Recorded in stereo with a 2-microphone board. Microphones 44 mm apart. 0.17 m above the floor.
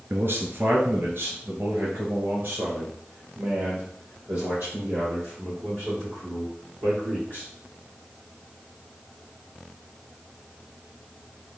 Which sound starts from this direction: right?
A man speaking, at 0.1 s.